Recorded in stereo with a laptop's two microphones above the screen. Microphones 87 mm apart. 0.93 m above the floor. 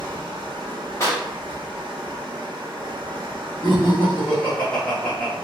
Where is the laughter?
10° left (ahead or behind), 0.7 m.